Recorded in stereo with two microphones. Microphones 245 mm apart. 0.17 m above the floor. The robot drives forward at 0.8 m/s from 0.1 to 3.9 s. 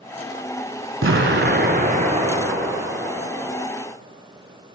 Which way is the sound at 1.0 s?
60° right (ahead or behind).